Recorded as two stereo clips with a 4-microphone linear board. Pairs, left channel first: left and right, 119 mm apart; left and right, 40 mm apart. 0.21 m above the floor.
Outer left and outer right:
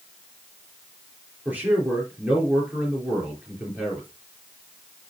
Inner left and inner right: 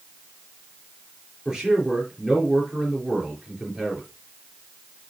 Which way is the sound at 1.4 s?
15° right (ahead or behind).